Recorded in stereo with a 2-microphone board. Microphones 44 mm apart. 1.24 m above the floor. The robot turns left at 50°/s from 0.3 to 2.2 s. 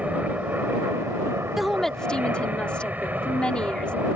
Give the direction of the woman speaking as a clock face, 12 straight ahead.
6 o'clock.